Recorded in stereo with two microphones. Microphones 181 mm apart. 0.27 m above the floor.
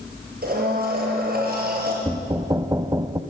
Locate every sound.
0.4 s a blender: 55° right (ahead or behind), 6 m
2.0 s knocking: 20° right (ahead or behind), 0.8 m